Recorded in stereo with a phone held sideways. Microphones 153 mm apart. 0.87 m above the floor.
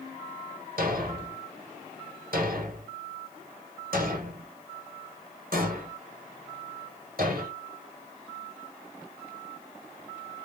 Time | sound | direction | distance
0.8 | a thud | 75° right (ahead or behind) | 1.4 m